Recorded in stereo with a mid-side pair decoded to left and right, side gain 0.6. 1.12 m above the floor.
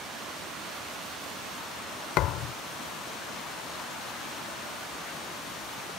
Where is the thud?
65° left.